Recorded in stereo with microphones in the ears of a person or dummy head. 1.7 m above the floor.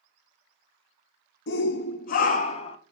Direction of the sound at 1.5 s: 75° left (ahead or behind).